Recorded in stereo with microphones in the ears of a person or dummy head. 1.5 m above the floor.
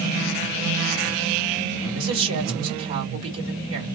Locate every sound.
1.9 s a woman speaking: 80° right, 2.5 m